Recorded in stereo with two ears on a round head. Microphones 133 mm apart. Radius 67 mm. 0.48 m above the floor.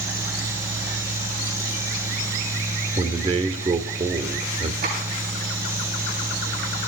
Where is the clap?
65° right (ahead or behind), 8 m.